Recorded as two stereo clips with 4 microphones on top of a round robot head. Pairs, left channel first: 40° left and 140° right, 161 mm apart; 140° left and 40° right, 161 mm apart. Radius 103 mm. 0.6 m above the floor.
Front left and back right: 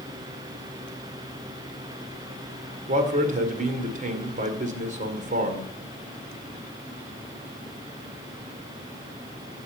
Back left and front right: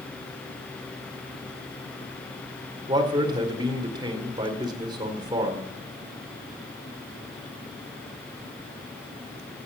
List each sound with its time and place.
2.9 s a man speaking: 105° right, 2 m